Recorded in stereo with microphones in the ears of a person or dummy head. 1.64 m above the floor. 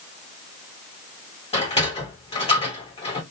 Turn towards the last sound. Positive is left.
turn(degrees=30)  # may be behind; listen again after turning